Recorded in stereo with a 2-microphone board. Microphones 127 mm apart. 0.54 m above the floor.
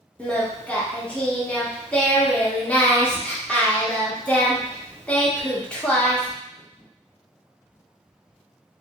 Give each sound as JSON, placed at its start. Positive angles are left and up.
{"t": 0.2, "sound": "singing", "side_deg": 10, "distance_m": 0.8}